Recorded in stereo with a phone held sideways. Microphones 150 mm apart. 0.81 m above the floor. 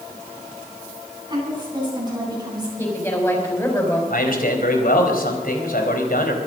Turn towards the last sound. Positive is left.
turn(degrees=70)  # may be behind; listen again after turning